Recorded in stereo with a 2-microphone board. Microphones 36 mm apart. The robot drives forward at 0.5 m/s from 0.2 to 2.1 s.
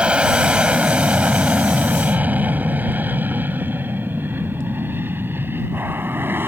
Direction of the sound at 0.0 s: 30° right (ahead or behind).